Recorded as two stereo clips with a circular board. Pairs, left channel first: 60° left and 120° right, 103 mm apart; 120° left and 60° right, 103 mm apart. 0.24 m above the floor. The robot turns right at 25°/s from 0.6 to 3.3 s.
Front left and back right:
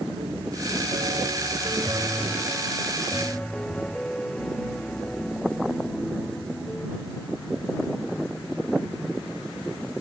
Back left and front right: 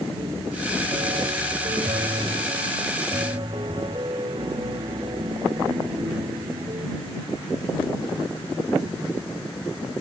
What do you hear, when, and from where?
0.2 s a piano: 90° right; by 6.9 s 20° right